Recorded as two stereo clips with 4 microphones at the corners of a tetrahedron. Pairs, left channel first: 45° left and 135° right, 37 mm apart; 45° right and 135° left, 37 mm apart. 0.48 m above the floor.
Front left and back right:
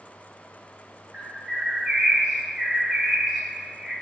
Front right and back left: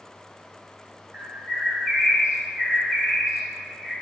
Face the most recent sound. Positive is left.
turn(degrees=170)